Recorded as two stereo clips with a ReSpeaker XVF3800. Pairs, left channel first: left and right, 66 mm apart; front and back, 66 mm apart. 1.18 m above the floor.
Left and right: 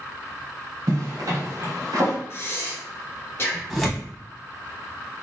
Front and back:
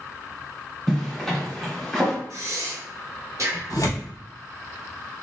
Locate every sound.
0.9 s a zipper: 90° right, 1.3 m
2.3 s breathing: 140° left, 0.8 m
3.7 s tearing paper: straight ahead, 1.0 m